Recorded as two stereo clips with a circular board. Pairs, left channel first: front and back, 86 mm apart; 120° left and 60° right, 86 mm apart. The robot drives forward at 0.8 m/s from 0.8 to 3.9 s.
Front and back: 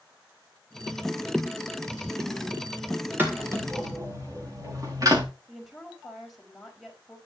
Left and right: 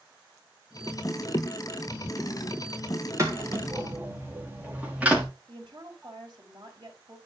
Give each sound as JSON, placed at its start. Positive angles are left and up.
{"t": 3.2, "sound": "footsteps", "azimuth_deg": -115, "distance_m": 4.0}
{"t": 5.5, "sound": "a woman speaking", "azimuth_deg": -90, "distance_m": 4.0}